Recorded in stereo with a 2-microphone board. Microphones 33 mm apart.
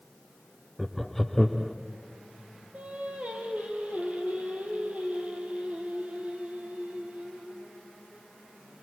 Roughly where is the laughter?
Centre.